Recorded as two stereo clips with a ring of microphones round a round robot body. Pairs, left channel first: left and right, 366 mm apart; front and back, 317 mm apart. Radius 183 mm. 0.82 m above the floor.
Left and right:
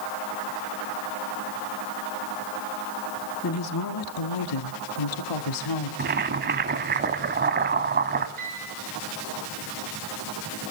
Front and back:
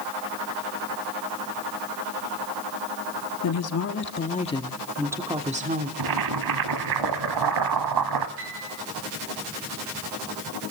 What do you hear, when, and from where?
3.4 s a woman speaking: 35° left, 1.9 m; by 5.9 s 120° left, 2 m
6.0 s boiling: 155° right, 1.3 m
8.4 s a piano: 160° right, 8 m